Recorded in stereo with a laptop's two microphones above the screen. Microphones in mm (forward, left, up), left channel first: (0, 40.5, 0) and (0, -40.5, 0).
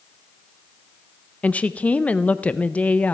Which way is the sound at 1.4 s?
15° left (ahead or behind).